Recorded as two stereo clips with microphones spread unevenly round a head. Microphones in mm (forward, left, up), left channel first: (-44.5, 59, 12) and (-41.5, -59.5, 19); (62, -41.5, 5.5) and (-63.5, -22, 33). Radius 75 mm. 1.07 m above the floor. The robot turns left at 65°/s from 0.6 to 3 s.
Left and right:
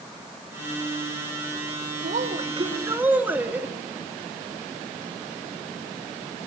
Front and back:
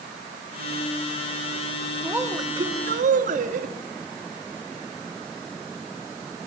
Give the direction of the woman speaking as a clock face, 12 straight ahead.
3 o'clock.